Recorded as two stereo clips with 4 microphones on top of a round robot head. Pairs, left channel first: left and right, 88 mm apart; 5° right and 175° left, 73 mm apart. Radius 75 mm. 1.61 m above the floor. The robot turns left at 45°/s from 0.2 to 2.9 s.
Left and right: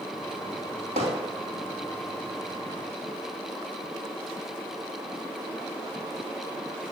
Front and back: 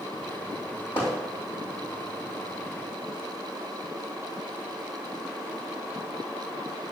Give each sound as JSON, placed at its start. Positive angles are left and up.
{"t": 1.0, "sound": "hammering", "azimuth_deg": -70, "distance_m": 2.5}